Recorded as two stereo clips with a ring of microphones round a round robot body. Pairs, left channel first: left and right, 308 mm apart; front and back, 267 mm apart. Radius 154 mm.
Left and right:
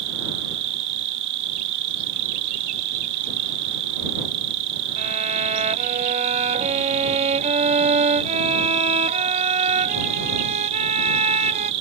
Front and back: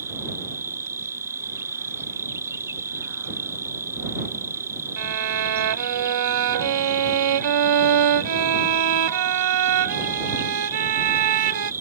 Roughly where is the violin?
Behind.